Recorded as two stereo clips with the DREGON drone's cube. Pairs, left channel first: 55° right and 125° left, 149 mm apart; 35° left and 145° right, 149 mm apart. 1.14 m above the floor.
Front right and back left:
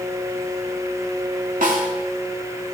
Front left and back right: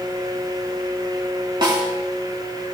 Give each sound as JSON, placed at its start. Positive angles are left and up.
{"t": 1.6, "sound": "a snare drum", "azimuth_deg": 155, "distance_m": 2.5}